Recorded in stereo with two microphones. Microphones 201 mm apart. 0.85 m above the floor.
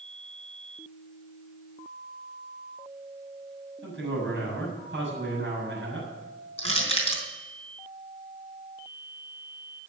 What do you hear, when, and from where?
3.8 s a man speaking: 70° right (ahead or behind), 7 m
6.6 s crushing: 30° left (ahead or behind), 4 m